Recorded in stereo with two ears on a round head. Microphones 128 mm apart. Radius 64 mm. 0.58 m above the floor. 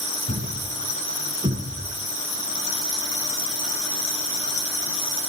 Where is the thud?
40° right (ahead or behind), 3 m.